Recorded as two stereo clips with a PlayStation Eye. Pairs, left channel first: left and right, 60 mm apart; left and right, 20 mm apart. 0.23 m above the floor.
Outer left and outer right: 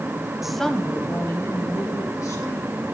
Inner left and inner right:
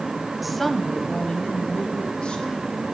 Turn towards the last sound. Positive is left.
turn(degrees=70)  # may be behind; listen again after turning